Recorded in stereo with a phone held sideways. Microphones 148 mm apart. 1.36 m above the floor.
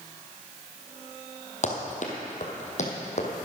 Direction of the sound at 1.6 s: 50° left (ahead or behind).